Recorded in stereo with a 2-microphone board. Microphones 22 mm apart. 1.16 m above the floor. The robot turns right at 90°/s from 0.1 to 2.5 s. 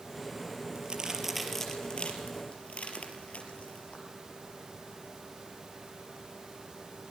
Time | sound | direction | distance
0.8 | a crack | 55° right (ahead or behind) | 4.5 m